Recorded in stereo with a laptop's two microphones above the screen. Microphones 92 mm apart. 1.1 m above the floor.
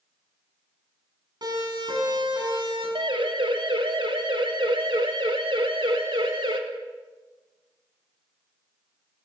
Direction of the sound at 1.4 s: 50° right (ahead or behind).